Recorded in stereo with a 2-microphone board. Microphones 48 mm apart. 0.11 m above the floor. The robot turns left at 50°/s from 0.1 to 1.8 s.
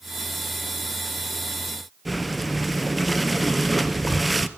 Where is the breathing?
Centre (ahead or behind), 0.8 m.